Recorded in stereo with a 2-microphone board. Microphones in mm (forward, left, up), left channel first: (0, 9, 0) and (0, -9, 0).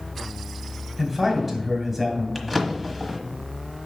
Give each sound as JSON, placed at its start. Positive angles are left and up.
{"t": 1.0, "sound": "a man speaking", "side_deg": -15, "distance_m": 2.5}
{"t": 2.4, "sound": "a drawer", "side_deg": -10, "distance_m": 1.2}